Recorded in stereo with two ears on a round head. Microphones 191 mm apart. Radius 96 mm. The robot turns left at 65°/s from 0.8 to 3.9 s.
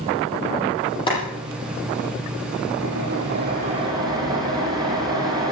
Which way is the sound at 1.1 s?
25° left.